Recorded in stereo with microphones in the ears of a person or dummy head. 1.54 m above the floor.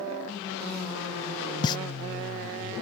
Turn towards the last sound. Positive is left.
turn(degrees=25)  # may be behind; listen again after turning